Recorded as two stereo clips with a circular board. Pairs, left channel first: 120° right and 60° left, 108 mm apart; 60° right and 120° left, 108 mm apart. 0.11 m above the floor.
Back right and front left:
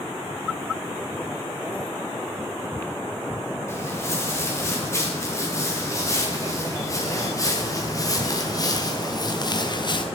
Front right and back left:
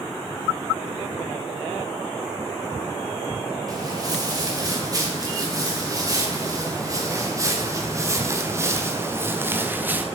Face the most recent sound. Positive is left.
turn(degrees=-165)